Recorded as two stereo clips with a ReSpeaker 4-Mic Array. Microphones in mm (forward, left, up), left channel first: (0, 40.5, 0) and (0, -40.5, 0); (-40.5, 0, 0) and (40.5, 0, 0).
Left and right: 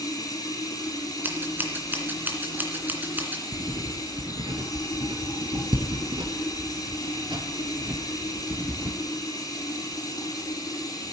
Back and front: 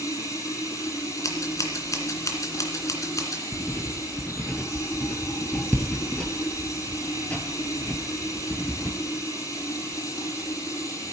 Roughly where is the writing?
Right.